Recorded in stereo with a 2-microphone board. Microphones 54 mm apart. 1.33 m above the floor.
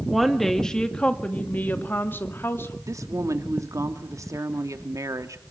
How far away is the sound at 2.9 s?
About 2.5 m.